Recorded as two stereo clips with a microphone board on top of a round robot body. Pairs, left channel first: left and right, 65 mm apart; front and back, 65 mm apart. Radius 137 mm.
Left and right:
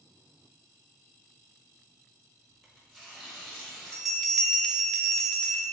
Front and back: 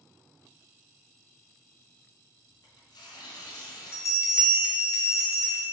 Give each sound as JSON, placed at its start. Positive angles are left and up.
{"t": 2.5, "sound": "tearing paper", "azimuth_deg": 10, "distance_m": 0.8}
{"t": 3.9, "sound": "a bell", "azimuth_deg": 5, "distance_m": 1.1}